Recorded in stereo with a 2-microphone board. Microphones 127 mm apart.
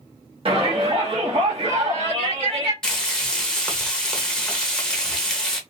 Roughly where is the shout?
Right.